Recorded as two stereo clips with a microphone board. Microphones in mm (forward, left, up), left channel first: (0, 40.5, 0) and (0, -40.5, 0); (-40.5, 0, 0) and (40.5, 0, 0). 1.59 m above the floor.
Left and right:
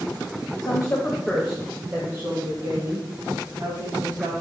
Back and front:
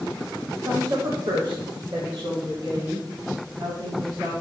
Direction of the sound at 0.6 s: 55° left.